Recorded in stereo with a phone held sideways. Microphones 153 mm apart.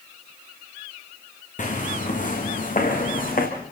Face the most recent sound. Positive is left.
turn(degrees=65)  # may be behind; listen again after turning